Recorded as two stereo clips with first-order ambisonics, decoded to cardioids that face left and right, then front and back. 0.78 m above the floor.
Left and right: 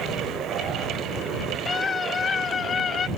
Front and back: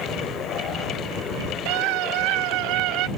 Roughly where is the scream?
Behind.